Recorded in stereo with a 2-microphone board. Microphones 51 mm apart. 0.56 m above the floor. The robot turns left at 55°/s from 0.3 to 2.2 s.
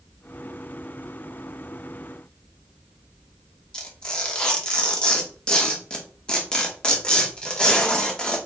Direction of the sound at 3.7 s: 15° left (ahead or behind).